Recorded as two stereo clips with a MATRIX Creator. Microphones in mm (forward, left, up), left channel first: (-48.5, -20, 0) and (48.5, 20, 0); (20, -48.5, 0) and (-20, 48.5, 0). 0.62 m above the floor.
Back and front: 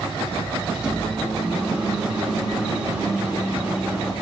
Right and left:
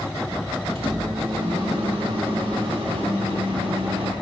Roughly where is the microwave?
Left.